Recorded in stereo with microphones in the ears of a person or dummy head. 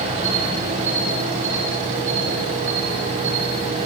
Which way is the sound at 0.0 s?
25° right (ahead or behind).